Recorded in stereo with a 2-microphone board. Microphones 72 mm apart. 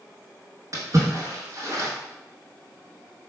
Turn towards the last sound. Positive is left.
turn(degrees=-50)  # may be behind; listen again after turning